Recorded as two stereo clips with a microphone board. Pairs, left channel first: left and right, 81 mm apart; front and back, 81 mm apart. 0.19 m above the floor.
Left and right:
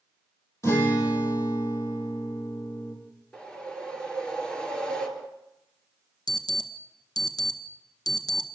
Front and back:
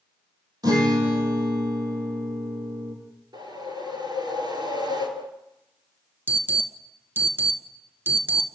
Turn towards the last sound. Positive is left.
turn(degrees=120)